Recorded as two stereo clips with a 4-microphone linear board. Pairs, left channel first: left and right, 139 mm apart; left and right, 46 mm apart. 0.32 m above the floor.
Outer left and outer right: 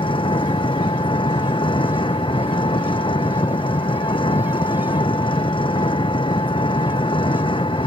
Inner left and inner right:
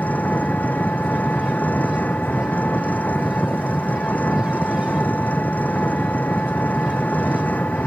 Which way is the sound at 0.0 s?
35° left (ahead or behind).